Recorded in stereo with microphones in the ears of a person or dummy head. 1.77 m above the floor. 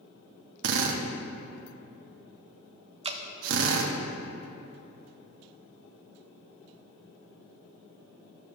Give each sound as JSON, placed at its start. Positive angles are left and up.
{"t": 0.6, "sound": "a drill", "side_deg": -75, "distance_m": 0.9}
{"t": 3.0, "sound": "dripping", "side_deg": -25, "distance_m": 0.5}